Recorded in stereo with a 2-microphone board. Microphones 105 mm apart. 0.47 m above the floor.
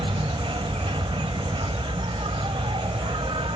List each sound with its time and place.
0.0 s an insect: 70° right (ahead or behind)